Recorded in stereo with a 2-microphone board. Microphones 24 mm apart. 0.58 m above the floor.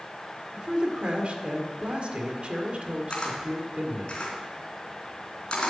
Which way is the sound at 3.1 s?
40° left (ahead or behind).